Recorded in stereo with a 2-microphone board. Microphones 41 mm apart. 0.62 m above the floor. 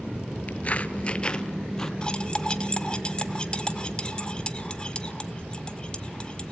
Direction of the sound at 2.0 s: 20° left (ahead or behind).